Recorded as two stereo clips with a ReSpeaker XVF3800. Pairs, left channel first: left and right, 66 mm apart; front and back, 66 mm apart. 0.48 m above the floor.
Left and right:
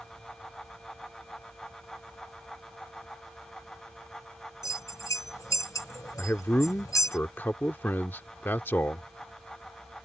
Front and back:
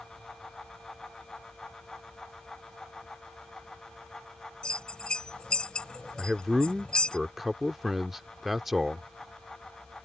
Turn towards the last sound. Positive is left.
turn(degrees=95)